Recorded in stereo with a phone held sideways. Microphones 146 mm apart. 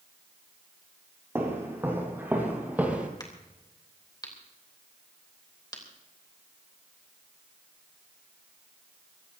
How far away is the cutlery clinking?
I don't hear cutlery clinking.